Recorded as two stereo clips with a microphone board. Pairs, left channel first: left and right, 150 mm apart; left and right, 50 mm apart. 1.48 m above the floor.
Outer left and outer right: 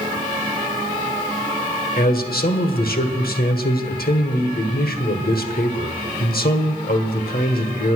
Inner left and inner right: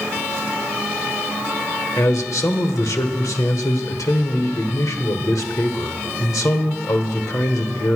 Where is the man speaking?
85° left, 1.4 m.